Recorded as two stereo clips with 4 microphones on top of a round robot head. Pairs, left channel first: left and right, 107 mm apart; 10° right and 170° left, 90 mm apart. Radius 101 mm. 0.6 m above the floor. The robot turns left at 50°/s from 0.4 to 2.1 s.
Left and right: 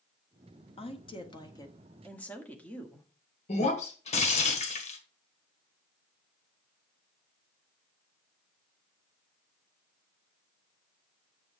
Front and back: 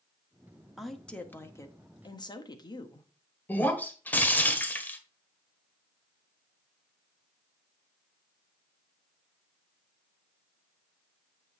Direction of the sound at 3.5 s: 60° left.